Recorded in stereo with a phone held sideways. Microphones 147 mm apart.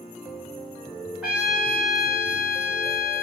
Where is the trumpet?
5° right (ahead or behind), 5 m.